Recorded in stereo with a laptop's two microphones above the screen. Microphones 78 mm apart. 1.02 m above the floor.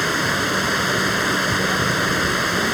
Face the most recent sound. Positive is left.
turn(degrees=0)  # may be behind; listen again after turning